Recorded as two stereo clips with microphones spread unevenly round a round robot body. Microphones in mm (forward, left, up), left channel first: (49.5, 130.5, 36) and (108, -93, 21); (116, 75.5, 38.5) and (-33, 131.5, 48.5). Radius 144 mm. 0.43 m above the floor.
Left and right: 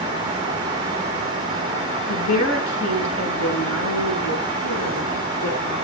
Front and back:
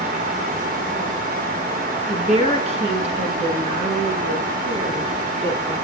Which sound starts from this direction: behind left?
A woman speaking, at 2.1 s.